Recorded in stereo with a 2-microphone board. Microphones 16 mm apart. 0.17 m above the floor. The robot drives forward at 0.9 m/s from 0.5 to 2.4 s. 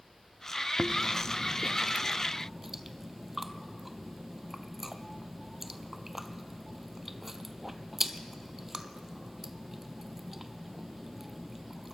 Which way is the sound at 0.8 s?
40° right (ahead or behind).